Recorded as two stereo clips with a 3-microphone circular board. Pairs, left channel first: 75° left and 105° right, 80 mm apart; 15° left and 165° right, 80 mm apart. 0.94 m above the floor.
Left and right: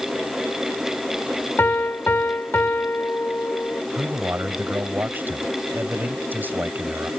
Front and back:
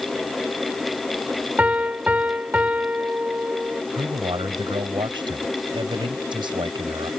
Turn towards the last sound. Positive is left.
turn(degrees=-170)